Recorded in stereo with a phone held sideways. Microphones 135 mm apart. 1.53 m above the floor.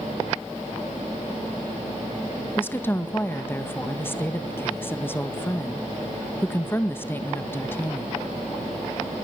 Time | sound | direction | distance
2.6 | a woman speaking | 15° left (ahead or behind) | 1.7 m